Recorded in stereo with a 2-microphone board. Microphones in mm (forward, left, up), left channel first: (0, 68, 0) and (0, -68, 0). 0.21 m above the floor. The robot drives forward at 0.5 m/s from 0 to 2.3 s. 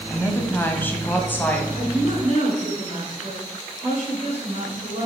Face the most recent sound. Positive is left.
turn(degrees=-50)  # may be behind; listen again after turning